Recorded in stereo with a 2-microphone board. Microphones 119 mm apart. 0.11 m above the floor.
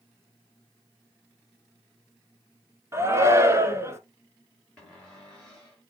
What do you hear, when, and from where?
2.9 s a shout: 25° right (ahead or behind), 1.2 m
4.8 s a cupboard door: 10° left (ahead or behind), 4.5 m